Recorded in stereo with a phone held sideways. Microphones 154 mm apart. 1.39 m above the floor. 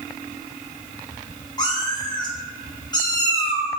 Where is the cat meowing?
25° left (ahead or behind), 0.8 m.